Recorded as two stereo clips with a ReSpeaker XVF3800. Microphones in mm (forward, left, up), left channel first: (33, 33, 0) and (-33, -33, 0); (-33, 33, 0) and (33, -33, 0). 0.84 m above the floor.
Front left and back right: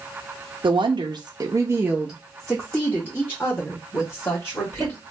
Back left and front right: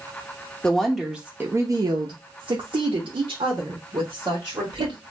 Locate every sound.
0.6 s a woman speaking: 145° right, 0.7 m; by 5.0 s 15° right, 1.8 m